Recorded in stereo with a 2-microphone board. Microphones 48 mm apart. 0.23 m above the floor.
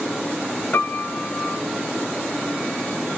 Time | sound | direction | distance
0.7 | a piano | 55° left (ahead or behind) | 1.2 m